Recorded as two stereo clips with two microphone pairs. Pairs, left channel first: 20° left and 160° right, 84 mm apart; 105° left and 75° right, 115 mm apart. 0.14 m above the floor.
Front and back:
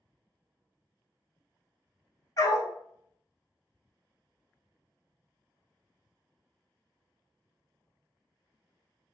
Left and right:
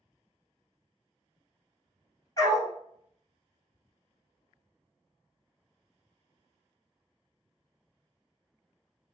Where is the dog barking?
55° left, 1.1 m.